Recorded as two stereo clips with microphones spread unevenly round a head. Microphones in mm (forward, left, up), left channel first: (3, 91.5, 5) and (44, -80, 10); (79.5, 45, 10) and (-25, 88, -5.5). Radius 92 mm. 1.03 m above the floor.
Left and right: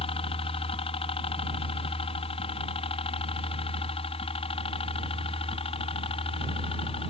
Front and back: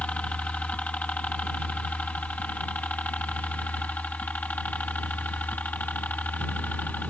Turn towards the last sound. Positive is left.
turn(degrees=50)